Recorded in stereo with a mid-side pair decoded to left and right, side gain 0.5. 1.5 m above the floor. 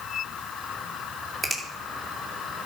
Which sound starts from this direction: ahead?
A finger snap, at 1.4 s.